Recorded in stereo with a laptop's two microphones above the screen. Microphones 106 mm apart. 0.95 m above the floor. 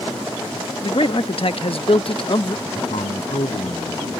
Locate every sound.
0.8 s a man speaking: 60° left (ahead or behind); by 2.5 s 50° left (ahead or behind)
2.6 s a man speaking: 80° left